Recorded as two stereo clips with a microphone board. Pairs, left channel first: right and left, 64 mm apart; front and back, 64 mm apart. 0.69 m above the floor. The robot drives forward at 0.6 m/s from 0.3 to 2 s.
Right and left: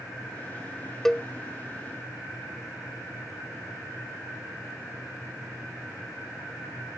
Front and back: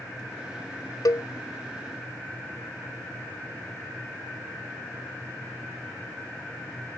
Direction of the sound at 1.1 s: 10° right.